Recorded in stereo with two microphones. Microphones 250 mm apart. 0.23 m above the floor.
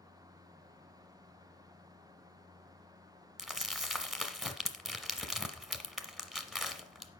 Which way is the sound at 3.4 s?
Centre (ahead or behind).